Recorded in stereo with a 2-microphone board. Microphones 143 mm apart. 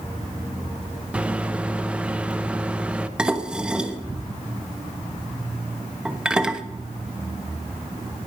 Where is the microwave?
10° right (ahead or behind), 0.9 m.